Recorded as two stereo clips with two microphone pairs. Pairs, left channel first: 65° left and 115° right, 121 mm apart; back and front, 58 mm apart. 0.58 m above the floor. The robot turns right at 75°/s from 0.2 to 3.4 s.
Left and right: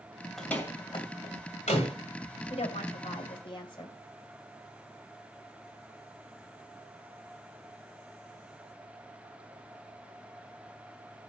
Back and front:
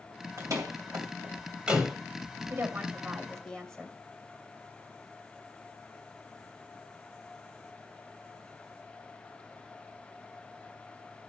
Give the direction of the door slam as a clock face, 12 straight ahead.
1 o'clock.